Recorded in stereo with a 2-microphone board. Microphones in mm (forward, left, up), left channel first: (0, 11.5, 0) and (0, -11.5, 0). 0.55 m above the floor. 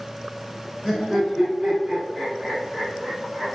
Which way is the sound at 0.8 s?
15° right (ahead or behind).